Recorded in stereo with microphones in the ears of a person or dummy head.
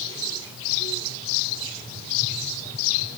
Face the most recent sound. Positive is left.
No sound to turn to.